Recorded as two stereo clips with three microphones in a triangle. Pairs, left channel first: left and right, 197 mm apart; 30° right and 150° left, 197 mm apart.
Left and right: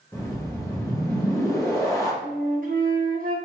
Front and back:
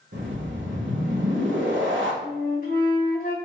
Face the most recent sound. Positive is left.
turn(degrees=-65)